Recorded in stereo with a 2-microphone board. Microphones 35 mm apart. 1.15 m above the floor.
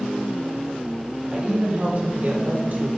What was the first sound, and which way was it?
A woman speaking, 25° right (ahead or behind).